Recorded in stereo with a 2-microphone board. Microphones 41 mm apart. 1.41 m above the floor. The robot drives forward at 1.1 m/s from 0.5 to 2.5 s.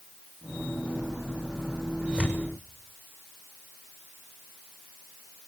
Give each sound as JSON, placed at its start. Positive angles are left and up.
{"t": 2.0, "sound": "tearing paper", "side_deg": -20, "distance_m": 6.5}